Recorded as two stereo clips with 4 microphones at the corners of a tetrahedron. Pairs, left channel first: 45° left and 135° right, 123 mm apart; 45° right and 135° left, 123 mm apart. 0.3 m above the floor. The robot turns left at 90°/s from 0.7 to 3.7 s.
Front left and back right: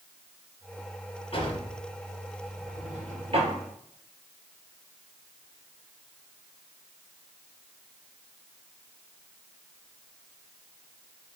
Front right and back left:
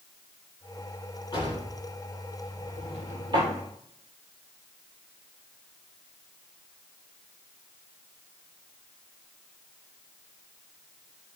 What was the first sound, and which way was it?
A drawer, 10° left.